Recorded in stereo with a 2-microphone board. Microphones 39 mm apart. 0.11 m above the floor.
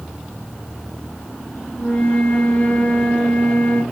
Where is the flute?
30° left (ahead or behind), 1.7 m.